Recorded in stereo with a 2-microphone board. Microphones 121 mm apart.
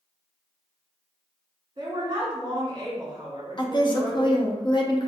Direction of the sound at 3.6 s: 40° left (ahead or behind).